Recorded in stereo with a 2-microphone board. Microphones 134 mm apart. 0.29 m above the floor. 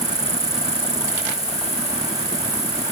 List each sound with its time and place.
0.0 s an insect: 25° right (ahead or behind)